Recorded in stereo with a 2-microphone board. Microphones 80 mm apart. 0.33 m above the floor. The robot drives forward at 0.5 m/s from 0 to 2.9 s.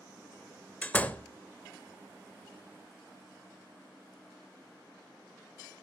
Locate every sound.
0.8 s a door slam: 20° left (ahead or behind), 0.6 m; by 1.3 s 15° left (ahead or behind), 0.7 m